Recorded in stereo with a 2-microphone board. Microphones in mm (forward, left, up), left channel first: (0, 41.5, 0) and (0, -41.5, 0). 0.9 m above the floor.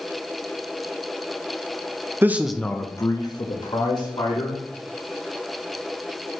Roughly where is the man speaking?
Right.